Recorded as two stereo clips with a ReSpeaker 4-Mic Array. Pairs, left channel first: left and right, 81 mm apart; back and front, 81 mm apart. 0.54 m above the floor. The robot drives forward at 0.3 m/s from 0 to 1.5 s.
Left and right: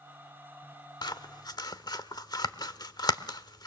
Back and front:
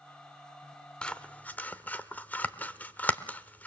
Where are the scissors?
105° left, 0.9 m; by 3.7 s 110° left, 1.0 m.